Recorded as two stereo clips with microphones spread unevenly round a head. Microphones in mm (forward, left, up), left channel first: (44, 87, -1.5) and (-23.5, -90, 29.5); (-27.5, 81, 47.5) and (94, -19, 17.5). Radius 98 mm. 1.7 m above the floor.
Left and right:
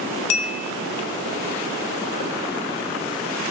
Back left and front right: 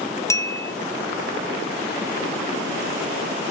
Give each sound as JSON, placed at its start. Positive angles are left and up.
{"t": 0.3, "sound": "a bell", "azimuth_deg": 70, "distance_m": 0.7}